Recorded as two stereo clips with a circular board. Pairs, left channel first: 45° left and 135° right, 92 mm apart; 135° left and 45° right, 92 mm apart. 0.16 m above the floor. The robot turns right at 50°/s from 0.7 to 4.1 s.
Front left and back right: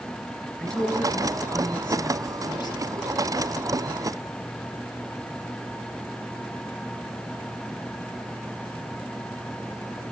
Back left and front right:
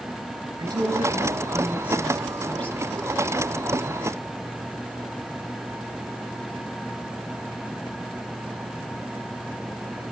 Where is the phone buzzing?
I don't hear a phone buzzing.